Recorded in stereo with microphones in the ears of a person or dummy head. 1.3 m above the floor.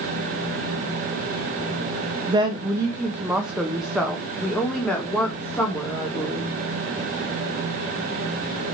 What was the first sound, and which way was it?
A woman speaking, 25° right (ahead or behind).